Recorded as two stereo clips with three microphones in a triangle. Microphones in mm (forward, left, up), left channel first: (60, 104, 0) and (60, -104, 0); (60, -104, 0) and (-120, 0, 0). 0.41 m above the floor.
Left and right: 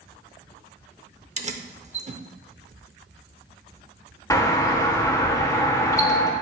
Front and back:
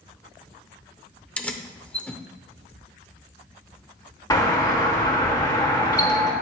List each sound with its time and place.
1.4 s keys jangling: 110° right, 0.6 m
4.3 s a doorbell: 25° left, 1.5 m